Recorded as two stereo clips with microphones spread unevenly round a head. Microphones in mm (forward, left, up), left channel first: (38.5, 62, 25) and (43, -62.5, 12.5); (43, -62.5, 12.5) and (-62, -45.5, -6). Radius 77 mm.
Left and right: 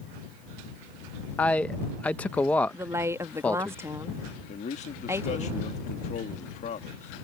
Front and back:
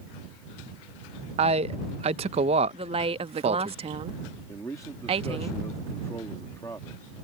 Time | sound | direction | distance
1.4 | a man speaking | 175° left | ?
2.7 | a woman speaking | 160° right | ?
4.5 | a man speaking | 65° left | ?